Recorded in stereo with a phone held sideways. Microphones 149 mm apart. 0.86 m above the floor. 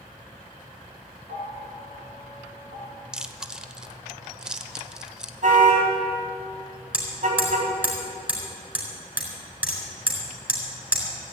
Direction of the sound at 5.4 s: 60° right (ahead or behind).